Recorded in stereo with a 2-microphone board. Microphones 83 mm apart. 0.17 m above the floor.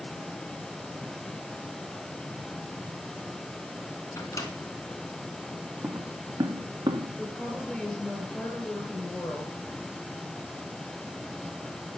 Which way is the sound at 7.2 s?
15° left (ahead or behind).